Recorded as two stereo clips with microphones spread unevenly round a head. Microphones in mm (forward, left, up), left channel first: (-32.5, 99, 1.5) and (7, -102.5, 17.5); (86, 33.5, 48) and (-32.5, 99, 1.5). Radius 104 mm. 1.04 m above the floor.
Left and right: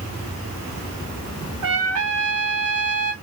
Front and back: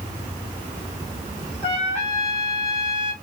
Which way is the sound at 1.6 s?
90° right.